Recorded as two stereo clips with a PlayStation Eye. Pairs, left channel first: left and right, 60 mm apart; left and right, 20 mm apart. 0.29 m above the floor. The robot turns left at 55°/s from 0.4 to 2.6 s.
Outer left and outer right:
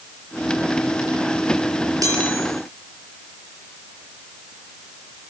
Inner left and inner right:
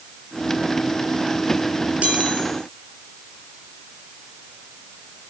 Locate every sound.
2.0 s a chime: 80° right, 7.5 m; by 2.5 s 70° right (ahead or behind), 7.5 m